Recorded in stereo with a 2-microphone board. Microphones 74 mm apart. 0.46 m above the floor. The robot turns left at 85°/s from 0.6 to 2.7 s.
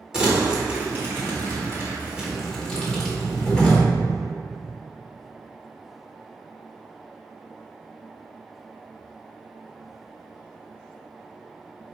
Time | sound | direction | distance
0.1 | crumpling | 10° right (ahead or behind) | 1.5 m